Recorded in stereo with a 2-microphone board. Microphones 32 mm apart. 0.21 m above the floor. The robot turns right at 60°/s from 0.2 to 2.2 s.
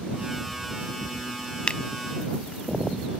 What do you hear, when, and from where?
1.7 s a finger snap: 30° left (ahead or behind)